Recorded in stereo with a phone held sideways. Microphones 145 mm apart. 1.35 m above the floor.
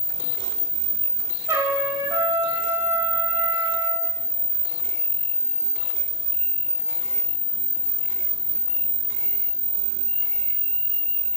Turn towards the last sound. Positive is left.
turn(degrees=-20)  # may be behind; listen again after turning